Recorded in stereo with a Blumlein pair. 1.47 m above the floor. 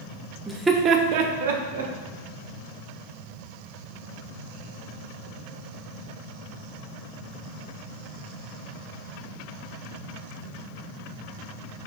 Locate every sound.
0.5 s laughter: straight ahead, 0.5 m; by 1.9 s 75° right, 0.9 m